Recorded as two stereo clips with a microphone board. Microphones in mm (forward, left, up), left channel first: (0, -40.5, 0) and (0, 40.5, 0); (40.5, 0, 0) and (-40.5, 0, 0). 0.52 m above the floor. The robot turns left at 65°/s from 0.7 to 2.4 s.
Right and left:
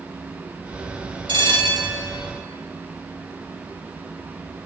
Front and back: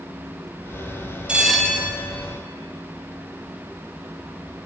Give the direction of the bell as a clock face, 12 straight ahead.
9 o'clock.